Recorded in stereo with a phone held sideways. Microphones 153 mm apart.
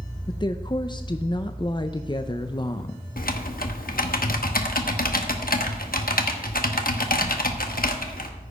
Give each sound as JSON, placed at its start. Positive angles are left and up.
{"t": 0.3, "sound": "a woman speaking", "side_deg": 30, "distance_m": 0.5}
{"t": 3.2, "sound": "typing on a keyboard", "side_deg": 70, "distance_m": 1.0}